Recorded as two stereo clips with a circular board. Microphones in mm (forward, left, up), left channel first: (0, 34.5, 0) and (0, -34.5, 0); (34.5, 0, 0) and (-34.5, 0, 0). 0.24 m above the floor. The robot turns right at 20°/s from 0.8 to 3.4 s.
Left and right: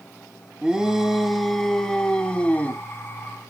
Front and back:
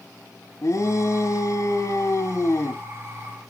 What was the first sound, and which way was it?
A shout, 15° right.